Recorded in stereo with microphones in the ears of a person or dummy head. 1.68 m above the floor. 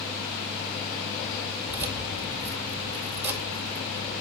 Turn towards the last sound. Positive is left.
turn(degrees=-10)  # may be behind; listen again after turning